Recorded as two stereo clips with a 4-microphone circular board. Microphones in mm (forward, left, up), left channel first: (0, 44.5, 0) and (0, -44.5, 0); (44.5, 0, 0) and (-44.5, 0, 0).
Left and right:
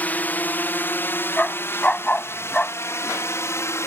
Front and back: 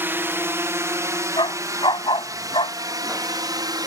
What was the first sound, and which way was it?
A drone, 140° left.